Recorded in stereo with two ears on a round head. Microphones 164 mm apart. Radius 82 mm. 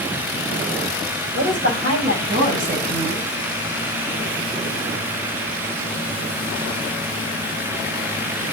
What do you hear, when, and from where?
1.4 s a woman speaking: 50° right (ahead or behind), 5.5 m; by 3.3 s 55° right (ahead or behind), 4.5 m